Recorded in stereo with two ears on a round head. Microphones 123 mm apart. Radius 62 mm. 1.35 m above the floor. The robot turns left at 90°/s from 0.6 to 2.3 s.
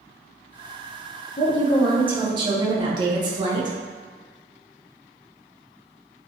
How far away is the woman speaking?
About 0.7 m.